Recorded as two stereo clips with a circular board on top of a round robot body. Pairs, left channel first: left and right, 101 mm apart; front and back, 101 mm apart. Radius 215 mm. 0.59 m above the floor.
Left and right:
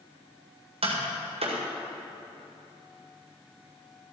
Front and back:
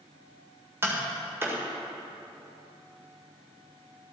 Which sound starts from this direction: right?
Tapping, at 0.8 s.